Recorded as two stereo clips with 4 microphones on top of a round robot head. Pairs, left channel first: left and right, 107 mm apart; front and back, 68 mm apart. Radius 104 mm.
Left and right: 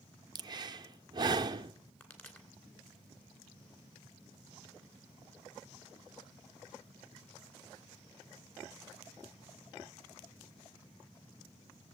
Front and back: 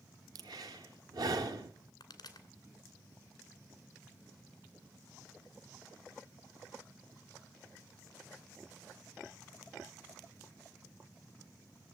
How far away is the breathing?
About 0.7 m.